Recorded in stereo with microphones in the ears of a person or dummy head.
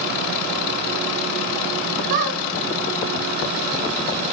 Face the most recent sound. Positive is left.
turn(degrees=-40)  # may be behind; listen again after turning